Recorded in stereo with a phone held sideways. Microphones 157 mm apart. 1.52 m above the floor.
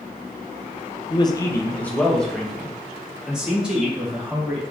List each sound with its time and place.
1.1 s a man speaking: 35° left (ahead or behind), 0.7 m; by 4.6 s 10° right (ahead or behind), 3 m